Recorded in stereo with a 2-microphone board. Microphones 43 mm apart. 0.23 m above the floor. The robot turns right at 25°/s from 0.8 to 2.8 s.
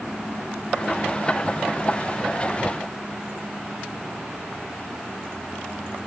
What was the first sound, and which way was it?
Only background noise.